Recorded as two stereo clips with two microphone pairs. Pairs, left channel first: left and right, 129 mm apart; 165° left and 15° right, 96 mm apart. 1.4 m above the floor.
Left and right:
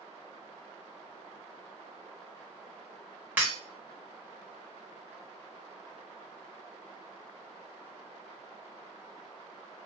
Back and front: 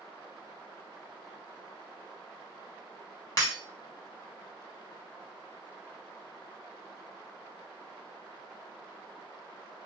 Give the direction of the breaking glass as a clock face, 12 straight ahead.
5 o'clock.